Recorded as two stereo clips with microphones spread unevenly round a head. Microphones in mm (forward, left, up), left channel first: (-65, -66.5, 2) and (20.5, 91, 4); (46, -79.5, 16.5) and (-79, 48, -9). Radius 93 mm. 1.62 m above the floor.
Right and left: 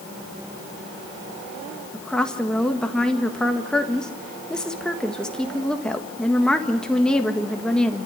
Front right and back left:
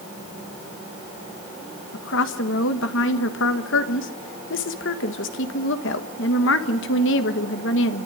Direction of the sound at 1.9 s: 30° right.